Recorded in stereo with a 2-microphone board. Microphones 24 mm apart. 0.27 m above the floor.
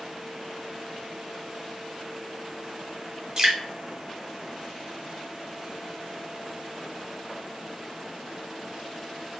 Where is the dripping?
25° right (ahead or behind), 1.4 m.